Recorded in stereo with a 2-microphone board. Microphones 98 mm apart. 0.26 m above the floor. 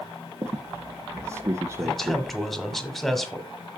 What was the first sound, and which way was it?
A squeak, 30° right (ahead or behind).